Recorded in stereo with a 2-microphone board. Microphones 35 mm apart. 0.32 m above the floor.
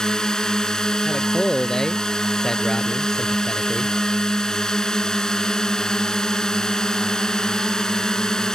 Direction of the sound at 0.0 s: 20° left (ahead or behind).